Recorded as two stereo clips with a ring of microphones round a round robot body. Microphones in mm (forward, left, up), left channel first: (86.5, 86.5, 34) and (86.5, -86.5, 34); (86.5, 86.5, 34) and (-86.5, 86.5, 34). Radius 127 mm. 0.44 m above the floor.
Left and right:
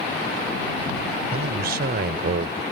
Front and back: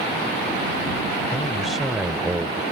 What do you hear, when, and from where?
1.3 s a man speaking: 85° right; by 2.6 s 105° right